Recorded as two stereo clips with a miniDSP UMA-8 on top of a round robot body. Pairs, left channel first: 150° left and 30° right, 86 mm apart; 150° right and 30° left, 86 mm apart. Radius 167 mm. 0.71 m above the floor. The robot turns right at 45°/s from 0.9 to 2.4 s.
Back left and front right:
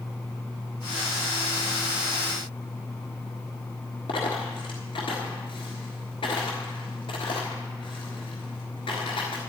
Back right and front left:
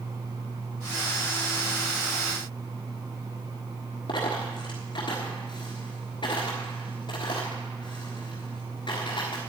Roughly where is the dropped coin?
Behind.